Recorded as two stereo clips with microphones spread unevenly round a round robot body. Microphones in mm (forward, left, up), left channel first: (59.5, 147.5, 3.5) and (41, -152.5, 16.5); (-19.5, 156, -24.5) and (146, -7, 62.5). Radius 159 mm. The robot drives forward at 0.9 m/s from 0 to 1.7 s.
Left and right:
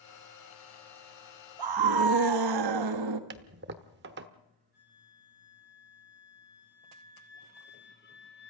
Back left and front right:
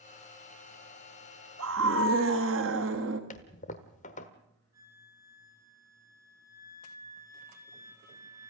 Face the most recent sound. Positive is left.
turn(degrees=30)